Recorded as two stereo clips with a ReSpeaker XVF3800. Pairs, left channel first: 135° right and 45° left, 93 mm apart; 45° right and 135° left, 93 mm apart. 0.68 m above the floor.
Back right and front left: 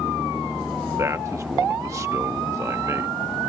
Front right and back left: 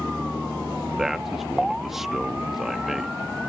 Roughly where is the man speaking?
Ahead left.